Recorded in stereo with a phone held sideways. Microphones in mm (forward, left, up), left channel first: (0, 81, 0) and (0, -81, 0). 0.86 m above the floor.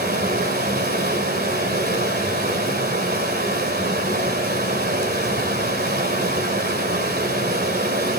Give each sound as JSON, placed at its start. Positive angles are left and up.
{"t": 0.0, "sound": "running water", "side_deg": -85, "distance_m": 2.5}